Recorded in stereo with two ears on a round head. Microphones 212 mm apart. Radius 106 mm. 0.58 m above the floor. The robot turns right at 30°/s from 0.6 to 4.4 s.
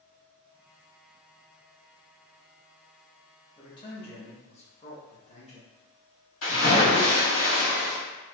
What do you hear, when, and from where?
3.6 s a man speaking: 20° left (ahead or behind), 0.7 m; by 5.7 s 30° left (ahead or behind), 0.7 m
6.4 s a splash: 55° left (ahead or behind), 1.9 m